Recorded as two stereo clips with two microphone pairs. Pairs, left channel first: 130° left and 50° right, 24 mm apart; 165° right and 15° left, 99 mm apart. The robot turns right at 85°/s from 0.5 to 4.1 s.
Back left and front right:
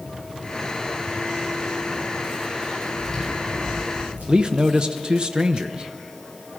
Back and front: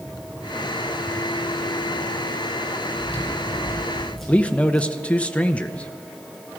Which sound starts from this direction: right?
A man speaking, at 4.3 s.